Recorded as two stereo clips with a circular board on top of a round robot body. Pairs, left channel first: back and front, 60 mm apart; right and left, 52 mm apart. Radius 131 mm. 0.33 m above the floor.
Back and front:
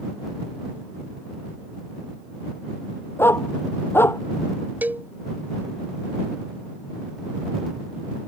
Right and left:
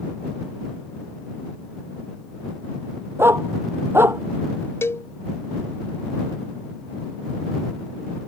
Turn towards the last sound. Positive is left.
turn(degrees=-60)